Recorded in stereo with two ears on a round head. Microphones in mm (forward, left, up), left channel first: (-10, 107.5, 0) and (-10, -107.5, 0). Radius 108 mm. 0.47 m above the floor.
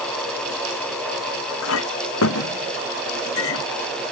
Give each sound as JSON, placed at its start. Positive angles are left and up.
{"t": 1.6, "sound": "a clink", "side_deg": 60}